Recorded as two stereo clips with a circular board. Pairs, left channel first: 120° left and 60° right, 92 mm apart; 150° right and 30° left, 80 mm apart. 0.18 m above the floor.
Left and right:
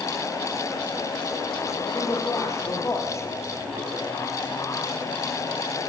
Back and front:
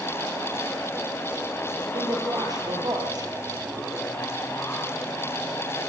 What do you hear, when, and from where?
1.9 s a man speaking: 65° left, 4.5 m